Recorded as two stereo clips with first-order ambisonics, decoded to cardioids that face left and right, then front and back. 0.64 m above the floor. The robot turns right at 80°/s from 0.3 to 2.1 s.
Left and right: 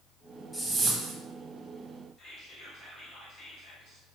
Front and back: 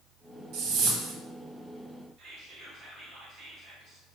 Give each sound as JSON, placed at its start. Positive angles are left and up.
{"t": 0.5, "sound": "a whoosh", "azimuth_deg": 170, "distance_m": 0.7}
{"t": 2.2, "sound": "whispering", "azimuth_deg": 150, "distance_m": 1.8}